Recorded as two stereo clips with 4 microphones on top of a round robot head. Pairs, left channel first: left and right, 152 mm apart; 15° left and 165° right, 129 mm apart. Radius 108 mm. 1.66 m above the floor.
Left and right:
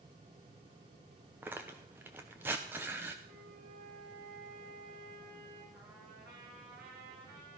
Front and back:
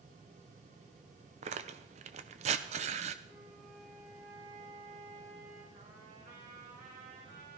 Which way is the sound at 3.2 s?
75° right.